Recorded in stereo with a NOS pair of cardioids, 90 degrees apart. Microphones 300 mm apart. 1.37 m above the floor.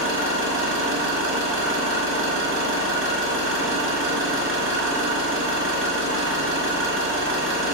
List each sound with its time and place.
0.0 s an engine running: 45° right, 1.2 m